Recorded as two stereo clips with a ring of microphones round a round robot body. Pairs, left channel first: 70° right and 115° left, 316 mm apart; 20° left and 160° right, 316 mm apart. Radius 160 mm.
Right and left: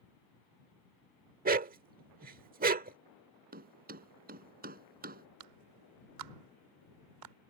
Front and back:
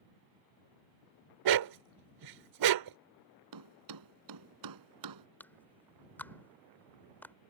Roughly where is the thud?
Behind.